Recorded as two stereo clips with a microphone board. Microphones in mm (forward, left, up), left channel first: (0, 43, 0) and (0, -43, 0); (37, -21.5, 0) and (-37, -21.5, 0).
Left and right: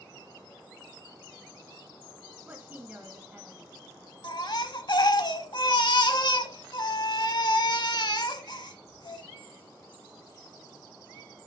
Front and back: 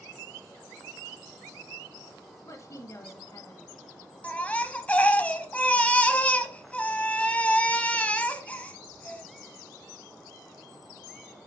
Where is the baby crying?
70° left, 0.8 m.